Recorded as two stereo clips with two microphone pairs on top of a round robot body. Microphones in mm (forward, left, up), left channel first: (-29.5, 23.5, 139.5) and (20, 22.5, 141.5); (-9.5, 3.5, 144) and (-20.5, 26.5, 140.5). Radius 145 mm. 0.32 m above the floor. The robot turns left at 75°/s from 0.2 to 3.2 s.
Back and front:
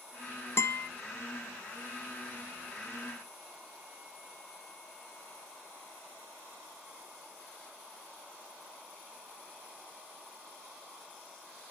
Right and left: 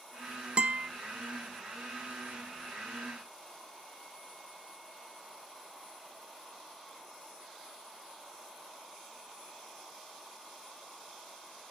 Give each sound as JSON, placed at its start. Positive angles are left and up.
{"t": 0.6, "sound": "a guitar", "azimuth_deg": 150, "distance_m": 0.8}